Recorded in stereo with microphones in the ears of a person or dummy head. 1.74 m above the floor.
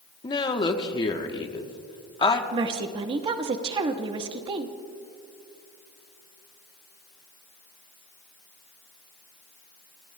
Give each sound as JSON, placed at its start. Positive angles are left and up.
{"t": 0.2, "sound": "a woman speaking", "side_deg": 25, "distance_m": 1.4}
{"t": 2.5, "sound": "a woman speaking", "side_deg": -25, "distance_m": 1.1}